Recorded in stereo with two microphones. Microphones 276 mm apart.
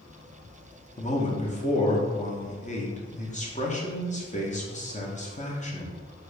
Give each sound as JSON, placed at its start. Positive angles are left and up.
{"t": 1.0, "sound": "a man speaking", "side_deg": 25, "distance_m": 0.7}